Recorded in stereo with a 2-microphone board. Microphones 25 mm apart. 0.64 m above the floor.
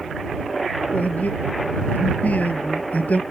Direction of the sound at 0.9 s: 85° left.